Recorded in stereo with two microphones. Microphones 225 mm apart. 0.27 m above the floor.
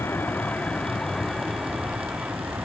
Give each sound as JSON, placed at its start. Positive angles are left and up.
{"t": 0.0, "sound": "a vehicle", "side_deg": 10}